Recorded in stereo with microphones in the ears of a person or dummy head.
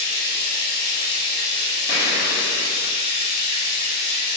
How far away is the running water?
About 1.3 m.